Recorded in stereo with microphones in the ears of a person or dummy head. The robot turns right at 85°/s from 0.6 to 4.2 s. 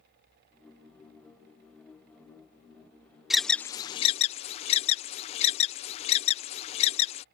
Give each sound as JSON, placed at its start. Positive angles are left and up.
{"t": 3.3, "sound": "an alarm", "side_deg": -5}